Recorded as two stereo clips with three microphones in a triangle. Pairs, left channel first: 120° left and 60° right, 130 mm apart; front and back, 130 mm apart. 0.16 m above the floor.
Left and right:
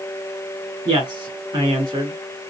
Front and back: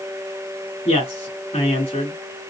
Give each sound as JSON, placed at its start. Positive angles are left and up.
{"t": 0.8, "sound": "a man speaking", "azimuth_deg": -20, "distance_m": 1.9}